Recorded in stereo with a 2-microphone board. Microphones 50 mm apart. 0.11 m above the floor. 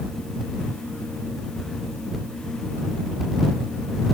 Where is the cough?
I don't hear a cough.